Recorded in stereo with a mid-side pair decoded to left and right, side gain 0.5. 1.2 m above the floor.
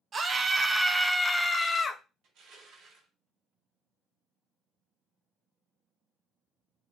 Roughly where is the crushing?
Ahead right.